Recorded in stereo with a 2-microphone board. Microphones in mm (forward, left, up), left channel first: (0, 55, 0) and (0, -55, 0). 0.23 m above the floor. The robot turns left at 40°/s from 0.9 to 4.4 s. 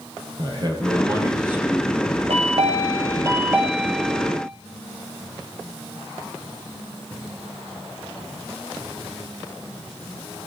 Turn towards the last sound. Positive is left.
turn(degrees=160)